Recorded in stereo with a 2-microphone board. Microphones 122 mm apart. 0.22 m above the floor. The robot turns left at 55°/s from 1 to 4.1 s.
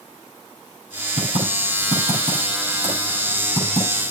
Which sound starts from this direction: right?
Typing on a keyboard, at 1.2 s.